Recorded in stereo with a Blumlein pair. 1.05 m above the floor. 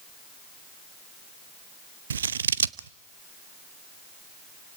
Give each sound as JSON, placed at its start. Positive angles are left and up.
{"t": 2.1, "sound": "scissors", "azimuth_deg": -65, "distance_m": 0.6}